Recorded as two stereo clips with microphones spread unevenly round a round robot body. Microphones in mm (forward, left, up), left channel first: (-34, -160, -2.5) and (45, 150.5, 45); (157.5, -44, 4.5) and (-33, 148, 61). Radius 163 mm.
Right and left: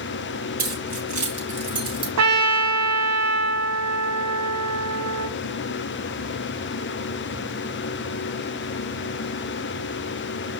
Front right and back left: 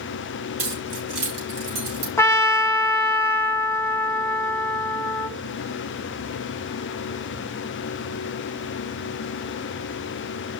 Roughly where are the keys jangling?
Behind left.